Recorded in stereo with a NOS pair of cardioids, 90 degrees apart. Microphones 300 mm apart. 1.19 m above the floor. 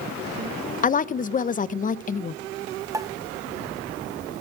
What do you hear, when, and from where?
0.8 s a woman speaking: 25° left, 0.6 m
2.9 s a pop: 10° right, 1.0 m